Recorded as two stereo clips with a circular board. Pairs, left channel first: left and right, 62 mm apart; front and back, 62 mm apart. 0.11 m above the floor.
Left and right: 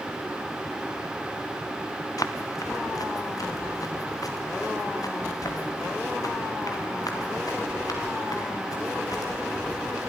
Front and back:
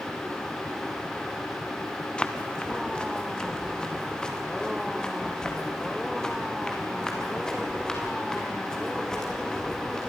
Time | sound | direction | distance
2.2 | running footsteps | 75° left | 1.8 m